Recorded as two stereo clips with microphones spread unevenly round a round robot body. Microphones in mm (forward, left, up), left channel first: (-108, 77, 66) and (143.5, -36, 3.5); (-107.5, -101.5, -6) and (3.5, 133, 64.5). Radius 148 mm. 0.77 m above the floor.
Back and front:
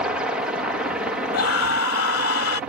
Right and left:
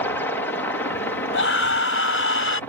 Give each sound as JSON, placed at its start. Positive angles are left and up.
{"t": 0.0, "sound": "a helicopter", "azimuth_deg": -80}
{"t": 1.3, "sound": "a scream", "azimuth_deg": -160}